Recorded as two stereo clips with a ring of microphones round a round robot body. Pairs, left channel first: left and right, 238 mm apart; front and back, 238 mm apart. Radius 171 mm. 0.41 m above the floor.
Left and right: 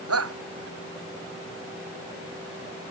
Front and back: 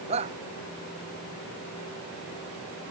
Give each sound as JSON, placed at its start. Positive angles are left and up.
{"t": 0.1, "sound": "a shout", "azimuth_deg": -105}